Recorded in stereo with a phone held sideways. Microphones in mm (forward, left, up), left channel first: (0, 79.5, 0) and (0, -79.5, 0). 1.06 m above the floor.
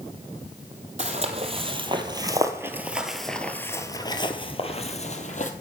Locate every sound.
1.0 s footsteps: 45° right (ahead or behind), 1.8 m; by 5.5 s 55° left (ahead or behind), 1.7 m